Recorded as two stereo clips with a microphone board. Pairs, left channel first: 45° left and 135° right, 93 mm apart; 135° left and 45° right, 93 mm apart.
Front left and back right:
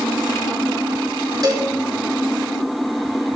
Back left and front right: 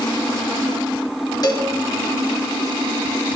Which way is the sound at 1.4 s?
Straight behind.